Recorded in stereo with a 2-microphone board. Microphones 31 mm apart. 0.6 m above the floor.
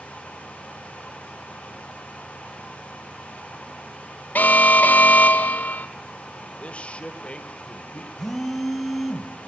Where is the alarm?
55° left (ahead or behind), 1.6 m.